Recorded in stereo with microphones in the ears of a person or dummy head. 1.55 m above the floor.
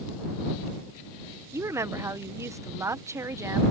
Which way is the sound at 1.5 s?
20° right (ahead or behind).